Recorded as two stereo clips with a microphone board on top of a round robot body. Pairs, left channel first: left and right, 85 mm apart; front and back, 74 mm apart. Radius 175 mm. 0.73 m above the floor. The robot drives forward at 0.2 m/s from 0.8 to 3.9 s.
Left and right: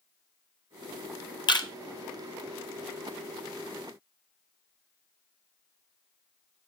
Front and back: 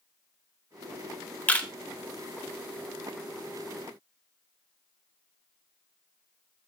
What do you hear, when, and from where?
1.5 s a camera shutter: 70° left, 1.3 m